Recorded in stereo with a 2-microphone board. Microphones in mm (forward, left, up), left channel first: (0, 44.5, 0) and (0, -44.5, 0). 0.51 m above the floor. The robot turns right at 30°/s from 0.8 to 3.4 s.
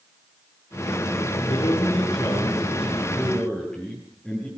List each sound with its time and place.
1.5 s a man speaking: 120° left, 8.5 m; by 4.5 s 175° left, 8.5 m